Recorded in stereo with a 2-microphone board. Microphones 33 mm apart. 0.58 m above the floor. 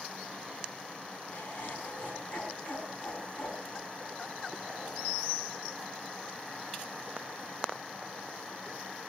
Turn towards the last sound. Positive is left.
turn(degrees=70)  # may be behind; listen again after turning